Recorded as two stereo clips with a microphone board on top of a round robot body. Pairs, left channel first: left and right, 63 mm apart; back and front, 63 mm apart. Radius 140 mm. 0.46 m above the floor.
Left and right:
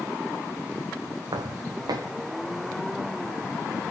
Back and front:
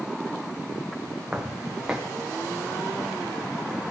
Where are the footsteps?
80° right, 2 m.